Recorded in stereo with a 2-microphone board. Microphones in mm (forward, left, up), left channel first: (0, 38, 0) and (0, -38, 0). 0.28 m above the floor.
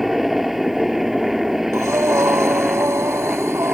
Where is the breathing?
40° right (ahead or behind).